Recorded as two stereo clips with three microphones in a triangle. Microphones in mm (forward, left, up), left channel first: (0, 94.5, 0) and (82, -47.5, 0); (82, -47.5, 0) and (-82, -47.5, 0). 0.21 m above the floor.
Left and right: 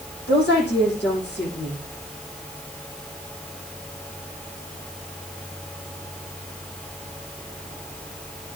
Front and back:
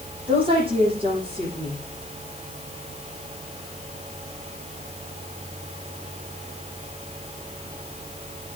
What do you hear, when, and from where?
0.3 s a woman speaking: 120° left, 9 m